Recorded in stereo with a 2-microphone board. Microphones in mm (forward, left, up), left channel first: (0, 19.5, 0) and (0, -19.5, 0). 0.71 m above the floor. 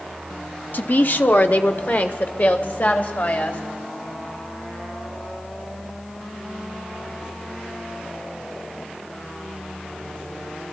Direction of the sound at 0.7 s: 55° left (ahead or behind).